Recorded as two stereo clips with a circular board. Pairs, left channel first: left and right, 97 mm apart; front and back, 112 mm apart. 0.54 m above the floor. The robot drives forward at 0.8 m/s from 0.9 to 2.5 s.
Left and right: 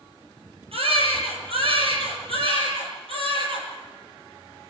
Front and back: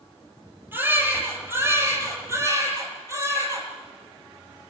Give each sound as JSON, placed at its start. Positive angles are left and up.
{"t": 0.7, "sound": "a baby crying", "azimuth_deg": -110, "distance_m": 9.0}